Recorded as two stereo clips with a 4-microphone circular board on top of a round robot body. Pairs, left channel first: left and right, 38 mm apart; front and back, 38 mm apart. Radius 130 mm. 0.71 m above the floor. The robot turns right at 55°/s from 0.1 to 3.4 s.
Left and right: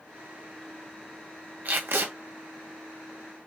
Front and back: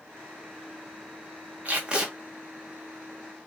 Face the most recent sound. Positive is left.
turn(degrees=-35)